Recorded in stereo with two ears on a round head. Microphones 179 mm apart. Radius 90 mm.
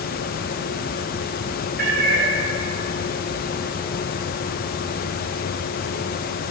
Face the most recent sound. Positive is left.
turn(degrees=-60)  # may be behind; listen again after turning